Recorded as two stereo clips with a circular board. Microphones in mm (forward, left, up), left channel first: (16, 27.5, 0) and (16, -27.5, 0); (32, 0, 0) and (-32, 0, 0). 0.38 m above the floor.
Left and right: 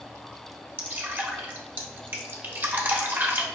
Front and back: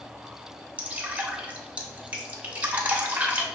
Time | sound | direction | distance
0.8 | dripping | 125° right | 0.8 m